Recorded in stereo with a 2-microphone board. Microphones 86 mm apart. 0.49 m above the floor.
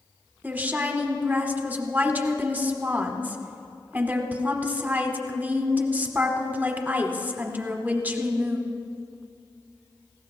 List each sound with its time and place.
0.4 s a woman speaking: 20° right (ahead or behind), 1.1 m